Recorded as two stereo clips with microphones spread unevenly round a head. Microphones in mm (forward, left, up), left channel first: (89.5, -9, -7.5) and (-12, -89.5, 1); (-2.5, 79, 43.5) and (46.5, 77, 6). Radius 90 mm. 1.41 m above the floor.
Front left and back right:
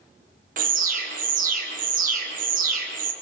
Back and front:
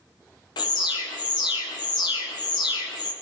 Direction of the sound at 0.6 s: 160° right.